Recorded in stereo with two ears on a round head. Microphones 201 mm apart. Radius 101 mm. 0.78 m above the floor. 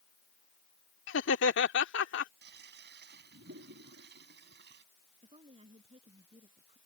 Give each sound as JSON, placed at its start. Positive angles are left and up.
{"t": 1.1, "sound": "laughter", "side_deg": 60}
{"t": 2.4, "sound": "a toilet flushing", "side_deg": -55}
{"t": 5.2, "sound": "a woman speaking", "side_deg": -25}